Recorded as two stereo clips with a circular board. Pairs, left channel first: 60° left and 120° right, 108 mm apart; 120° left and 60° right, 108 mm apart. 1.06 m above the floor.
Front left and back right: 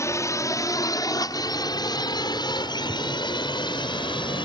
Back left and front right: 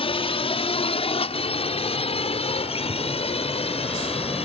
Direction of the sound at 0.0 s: 120° left.